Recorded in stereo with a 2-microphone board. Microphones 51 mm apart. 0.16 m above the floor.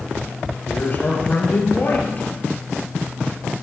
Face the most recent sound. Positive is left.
turn(degrees=40)  # may be behind; listen again after turning